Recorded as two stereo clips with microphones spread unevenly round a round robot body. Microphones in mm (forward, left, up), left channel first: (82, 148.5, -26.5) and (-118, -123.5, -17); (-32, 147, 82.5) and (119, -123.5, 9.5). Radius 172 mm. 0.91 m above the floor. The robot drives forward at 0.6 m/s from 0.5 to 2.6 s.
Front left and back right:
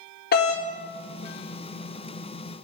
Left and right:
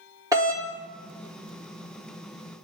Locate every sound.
0.3 s a doorbell: straight ahead, 1.2 m